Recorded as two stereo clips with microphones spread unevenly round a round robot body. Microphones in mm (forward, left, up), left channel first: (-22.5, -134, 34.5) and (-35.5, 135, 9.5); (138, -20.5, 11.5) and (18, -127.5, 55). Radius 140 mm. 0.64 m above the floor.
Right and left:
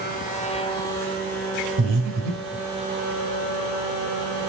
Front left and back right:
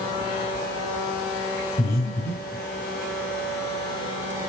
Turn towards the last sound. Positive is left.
turn(degrees=80)